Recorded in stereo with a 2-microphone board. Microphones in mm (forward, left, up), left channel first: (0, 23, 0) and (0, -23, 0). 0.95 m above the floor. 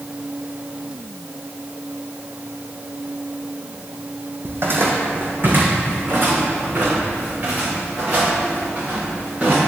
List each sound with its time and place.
4.5 s footsteps: 50° right (ahead or behind), 1.9 m; by 9.6 s 35° right (ahead or behind), 6.5 m